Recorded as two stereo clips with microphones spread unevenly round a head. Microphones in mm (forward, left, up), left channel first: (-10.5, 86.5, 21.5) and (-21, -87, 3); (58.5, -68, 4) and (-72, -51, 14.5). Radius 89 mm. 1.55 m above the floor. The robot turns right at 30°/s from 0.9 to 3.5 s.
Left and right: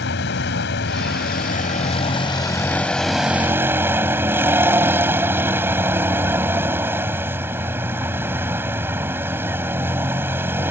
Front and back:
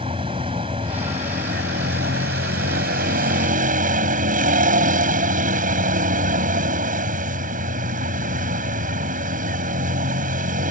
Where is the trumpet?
No trumpet in this recording.